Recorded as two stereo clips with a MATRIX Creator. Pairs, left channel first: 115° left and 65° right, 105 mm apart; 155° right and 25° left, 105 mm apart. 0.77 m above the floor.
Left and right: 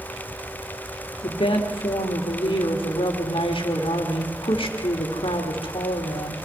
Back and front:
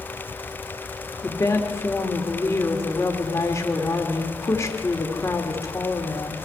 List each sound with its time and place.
1.2 s a woman speaking: 140° left, 2.5 m